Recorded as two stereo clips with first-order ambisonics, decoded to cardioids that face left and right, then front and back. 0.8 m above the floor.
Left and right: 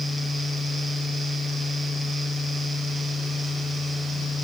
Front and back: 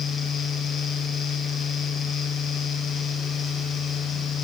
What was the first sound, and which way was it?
Only background noise.